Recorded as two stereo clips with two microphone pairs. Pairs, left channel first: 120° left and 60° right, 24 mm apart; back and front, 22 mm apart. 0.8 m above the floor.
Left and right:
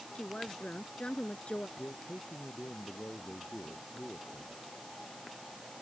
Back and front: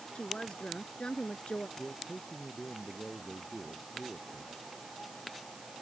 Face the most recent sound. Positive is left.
turn(degrees=120)